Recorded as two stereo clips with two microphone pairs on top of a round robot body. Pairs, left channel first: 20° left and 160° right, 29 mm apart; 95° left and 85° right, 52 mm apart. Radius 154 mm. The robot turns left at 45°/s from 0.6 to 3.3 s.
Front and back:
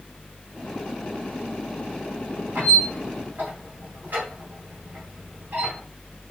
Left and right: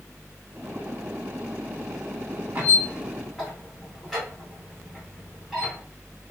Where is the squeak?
150° right, 1.1 m; by 5.8 s 175° left, 1.1 m.